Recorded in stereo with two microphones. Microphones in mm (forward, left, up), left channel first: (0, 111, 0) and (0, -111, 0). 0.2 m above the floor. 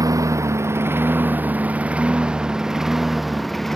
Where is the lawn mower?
15° right (ahead or behind); by 3.8 s centre (ahead or behind).